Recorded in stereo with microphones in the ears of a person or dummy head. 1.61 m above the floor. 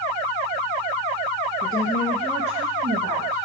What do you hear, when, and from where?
1.6 s a woman speaking: 35° left (ahead or behind), 0.8 m; by 3.5 s 60° right (ahead or behind), 0.9 m